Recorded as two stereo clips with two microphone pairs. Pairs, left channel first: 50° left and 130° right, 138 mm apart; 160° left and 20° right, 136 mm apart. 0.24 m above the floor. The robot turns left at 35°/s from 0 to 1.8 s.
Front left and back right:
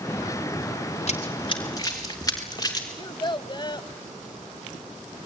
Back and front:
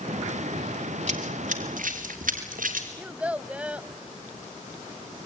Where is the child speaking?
50° left, 0.8 m.